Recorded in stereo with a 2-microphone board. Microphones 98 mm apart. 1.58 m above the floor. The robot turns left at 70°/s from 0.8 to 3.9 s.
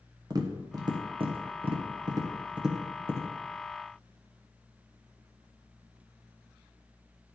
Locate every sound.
0.3 s tapping: 45° right (ahead or behind), 1.0 m; by 3.3 s 35° left (ahead or behind), 1.0 m